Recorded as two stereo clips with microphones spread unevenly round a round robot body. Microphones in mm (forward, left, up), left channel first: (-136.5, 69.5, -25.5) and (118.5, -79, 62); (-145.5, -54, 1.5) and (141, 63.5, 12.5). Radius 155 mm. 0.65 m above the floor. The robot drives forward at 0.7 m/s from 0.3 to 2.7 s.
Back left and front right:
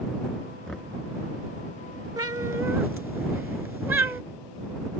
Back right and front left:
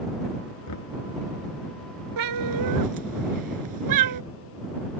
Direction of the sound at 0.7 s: 120° right.